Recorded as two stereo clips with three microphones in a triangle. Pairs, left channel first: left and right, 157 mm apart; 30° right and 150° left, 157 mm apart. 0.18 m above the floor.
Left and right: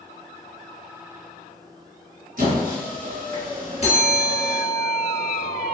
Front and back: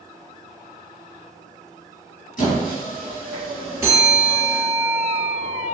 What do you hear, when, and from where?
2.4 s a squeak: 65° right, 1.5 m
3.8 s a bell: 85° left, 1.0 m